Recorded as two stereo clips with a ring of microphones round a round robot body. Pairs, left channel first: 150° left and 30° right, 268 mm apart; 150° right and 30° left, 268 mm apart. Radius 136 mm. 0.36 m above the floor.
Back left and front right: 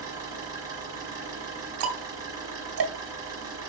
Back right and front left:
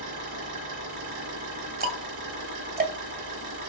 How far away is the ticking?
About 2.0 m.